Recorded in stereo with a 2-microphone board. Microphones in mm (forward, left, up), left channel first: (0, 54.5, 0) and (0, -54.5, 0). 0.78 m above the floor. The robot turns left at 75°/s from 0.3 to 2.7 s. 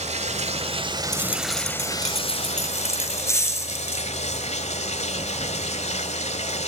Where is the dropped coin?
145° left, 4 m; by 4.1 s 25° left, 4 m.